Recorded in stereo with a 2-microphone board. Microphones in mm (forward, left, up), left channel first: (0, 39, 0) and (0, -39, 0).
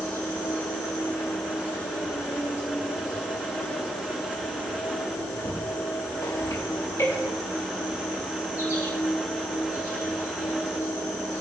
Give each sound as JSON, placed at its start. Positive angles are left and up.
{"t": 0.0, "sound": "an insect", "side_deg": 50, "distance_m": 5.5}